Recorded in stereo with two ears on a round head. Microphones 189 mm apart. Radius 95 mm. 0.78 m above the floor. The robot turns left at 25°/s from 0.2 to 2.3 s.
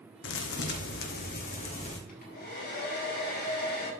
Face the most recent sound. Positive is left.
turn(degrees=45)  # may be behind; listen again after turning